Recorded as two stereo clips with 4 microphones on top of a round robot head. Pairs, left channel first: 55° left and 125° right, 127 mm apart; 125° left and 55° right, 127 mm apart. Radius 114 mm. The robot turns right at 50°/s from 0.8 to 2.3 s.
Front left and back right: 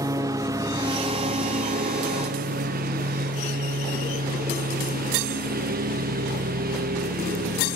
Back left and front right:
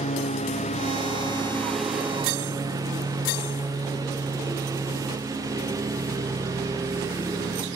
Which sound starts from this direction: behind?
A lawn mower, at 0.0 s.